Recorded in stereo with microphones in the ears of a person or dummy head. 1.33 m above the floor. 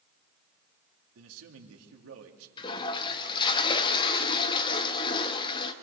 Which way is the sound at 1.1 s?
80° right.